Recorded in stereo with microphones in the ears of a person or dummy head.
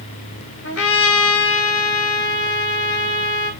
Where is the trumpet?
75° left (ahead or behind), 3 m.